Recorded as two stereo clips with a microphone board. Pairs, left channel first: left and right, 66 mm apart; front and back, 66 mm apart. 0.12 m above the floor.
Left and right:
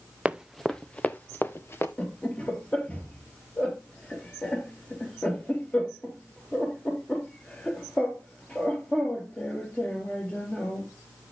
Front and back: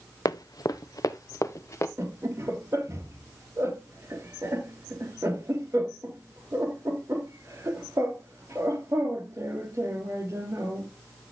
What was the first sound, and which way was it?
Running footsteps, 15° right.